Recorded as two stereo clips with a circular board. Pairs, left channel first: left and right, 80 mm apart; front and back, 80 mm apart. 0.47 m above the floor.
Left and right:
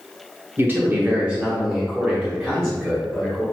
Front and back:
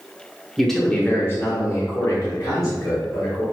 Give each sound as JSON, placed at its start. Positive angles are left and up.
{"t": 0.6, "sound": "a man speaking", "azimuth_deg": -95, "distance_m": 0.8}